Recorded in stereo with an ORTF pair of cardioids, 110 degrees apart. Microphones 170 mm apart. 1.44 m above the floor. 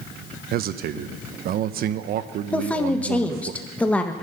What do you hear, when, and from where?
0.5 s a man speaking: 65° right, 1.0 m
2.5 s a woman speaking: 10° left, 1.3 m